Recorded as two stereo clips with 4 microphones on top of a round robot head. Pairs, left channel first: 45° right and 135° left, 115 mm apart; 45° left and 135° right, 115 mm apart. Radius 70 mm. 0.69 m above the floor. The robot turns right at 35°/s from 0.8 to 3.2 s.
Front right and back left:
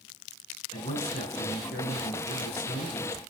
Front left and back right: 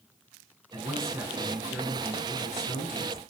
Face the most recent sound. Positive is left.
turn(degrees=5)